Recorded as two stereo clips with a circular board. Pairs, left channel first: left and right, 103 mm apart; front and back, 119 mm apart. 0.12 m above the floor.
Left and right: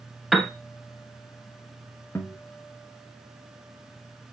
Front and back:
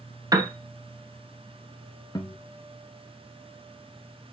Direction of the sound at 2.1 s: 35° left.